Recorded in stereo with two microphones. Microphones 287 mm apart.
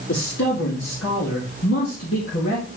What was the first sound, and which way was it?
A man speaking, 65° left (ahead or behind).